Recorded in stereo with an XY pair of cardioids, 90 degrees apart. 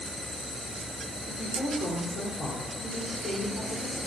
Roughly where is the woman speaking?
Ahead left.